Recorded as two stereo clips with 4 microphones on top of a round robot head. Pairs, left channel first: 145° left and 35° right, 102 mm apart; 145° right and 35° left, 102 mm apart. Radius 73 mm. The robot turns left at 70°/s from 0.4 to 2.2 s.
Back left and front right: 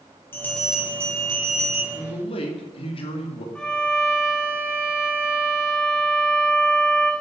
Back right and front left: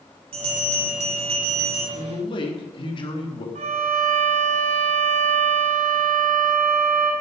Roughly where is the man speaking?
Behind.